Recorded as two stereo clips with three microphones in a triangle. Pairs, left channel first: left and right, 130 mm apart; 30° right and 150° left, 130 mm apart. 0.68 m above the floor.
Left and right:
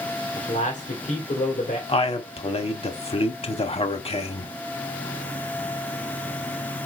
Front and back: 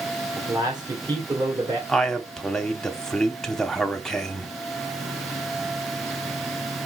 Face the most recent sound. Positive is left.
turn(degrees=55)